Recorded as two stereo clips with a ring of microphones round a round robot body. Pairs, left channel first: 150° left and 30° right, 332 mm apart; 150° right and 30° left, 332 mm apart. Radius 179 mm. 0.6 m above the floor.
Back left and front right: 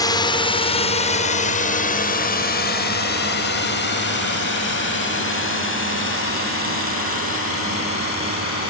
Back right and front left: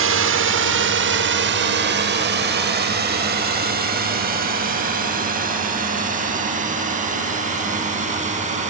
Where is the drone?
75° left; by 8.7 s 100° left.